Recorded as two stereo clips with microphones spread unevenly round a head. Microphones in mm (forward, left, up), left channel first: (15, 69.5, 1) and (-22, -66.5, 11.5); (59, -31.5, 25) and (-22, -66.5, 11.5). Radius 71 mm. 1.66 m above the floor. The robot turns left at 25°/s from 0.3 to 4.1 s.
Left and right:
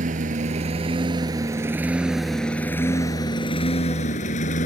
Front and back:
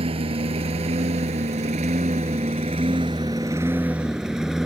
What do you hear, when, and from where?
0.0 s a lawn mower: 145° right; by 4.7 s 115° left